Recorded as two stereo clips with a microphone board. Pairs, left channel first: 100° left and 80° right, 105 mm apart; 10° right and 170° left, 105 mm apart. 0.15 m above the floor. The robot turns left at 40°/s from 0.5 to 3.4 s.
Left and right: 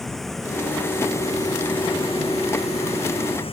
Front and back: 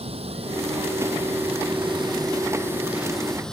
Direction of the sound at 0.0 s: 170° right.